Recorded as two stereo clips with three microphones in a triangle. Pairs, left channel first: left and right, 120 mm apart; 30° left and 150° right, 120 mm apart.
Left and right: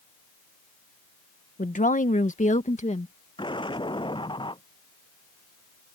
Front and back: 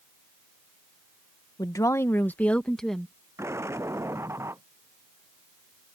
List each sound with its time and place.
1.6 s a woman speaking: 85° left; by 3.1 s 120° left
3.4 s an explosion: 140° left